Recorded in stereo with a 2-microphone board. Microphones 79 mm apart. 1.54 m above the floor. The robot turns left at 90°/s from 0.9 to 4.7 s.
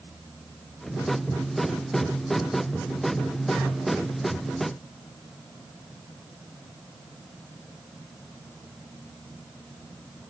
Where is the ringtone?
I don't hear a ringtone.